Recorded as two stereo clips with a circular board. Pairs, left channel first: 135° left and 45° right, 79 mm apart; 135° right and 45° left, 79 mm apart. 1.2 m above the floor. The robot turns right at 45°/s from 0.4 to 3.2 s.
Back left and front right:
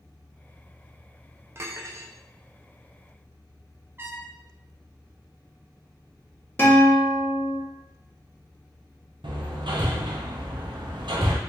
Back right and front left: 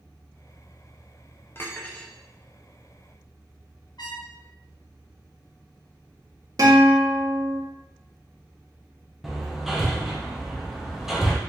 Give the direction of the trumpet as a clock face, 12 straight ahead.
4 o'clock.